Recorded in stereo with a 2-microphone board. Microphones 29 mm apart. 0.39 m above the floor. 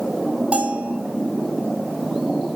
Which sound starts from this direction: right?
A bell, at 0.5 s.